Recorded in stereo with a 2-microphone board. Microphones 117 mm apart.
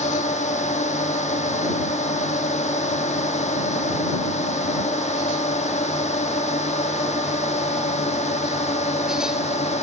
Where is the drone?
80° left; by 9.8 s 70° left (ahead or behind).